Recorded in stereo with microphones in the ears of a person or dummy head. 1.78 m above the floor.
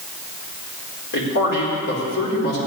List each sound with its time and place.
1.1 s a man speaking: 70° left (ahead or behind), 4.5 m